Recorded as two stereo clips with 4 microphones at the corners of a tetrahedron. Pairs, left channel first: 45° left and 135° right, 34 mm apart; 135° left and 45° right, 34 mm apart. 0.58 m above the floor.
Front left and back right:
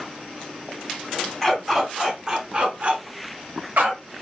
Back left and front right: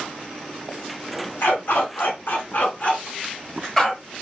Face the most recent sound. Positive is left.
turn(degrees=-145)